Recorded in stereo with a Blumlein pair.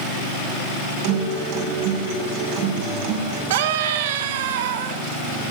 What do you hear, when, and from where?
1.0 s a guitar: 45° right, 6.5 m
3.5 s a scream: 55° right, 3 m